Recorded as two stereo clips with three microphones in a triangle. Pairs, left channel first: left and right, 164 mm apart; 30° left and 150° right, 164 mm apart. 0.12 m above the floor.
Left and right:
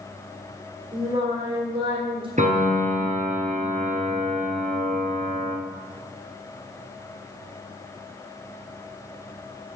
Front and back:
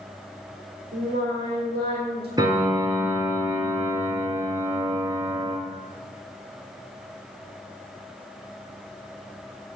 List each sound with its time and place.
0.9 s singing: 150° right, 2.5 m
2.4 s a piano: 90° right, 1.4 m